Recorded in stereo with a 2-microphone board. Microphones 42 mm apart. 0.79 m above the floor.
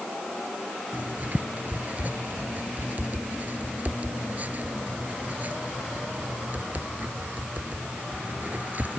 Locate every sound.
0.9 s writing: 40° right (ahead or behind)